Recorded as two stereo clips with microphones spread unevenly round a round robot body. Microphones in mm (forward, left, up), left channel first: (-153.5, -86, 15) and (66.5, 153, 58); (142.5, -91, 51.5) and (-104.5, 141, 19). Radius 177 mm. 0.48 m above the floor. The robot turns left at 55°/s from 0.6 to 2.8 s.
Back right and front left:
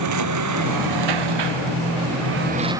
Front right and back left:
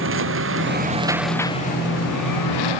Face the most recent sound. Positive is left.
turn(degrees=-35)